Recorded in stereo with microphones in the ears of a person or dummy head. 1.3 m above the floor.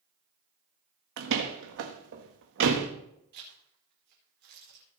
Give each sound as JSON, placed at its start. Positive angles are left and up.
{"t": 1.2, "sound": "a door slam", "side_deg": -65, "distance_m": 1.7}
{"t": 3.3, "sound": "a zipper", "side_deg": -50, "distance_m": 4.5}